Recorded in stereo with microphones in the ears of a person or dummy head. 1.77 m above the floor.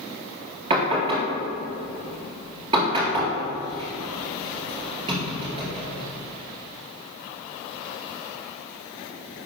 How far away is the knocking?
About 2 m.